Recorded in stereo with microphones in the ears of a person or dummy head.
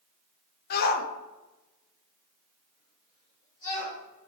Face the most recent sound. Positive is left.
turn(degrees=40)  # may be behind; listen again after turning